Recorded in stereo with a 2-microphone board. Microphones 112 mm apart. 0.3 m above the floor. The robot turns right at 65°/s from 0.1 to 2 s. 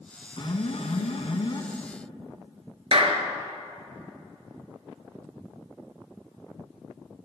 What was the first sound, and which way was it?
An alarm, 55° left.